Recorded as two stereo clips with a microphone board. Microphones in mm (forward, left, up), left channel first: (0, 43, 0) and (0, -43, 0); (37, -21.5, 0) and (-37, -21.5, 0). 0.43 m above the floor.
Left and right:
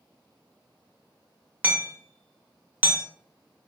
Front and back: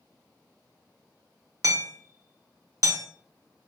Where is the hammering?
155° right, 0.8 m.